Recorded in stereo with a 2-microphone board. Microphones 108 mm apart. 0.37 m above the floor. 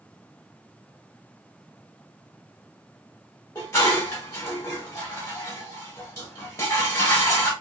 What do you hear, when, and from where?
3.5 s dishes clattering: 25° left (ahead or behind), 1.0 m